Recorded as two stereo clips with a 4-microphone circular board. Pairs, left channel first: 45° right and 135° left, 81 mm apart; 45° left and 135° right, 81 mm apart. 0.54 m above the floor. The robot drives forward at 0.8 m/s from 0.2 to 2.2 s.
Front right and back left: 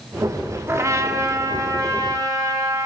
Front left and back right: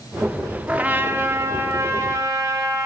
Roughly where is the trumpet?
Behind.